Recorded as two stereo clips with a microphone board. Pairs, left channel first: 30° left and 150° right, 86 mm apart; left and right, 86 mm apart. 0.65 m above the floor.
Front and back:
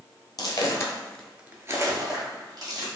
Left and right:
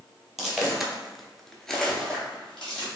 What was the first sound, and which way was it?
Footsteps, 5° right.